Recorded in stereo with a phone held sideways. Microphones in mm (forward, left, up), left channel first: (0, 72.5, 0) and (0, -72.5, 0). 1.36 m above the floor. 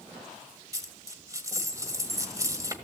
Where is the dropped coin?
20° right (ahead or behind), 1.5 m.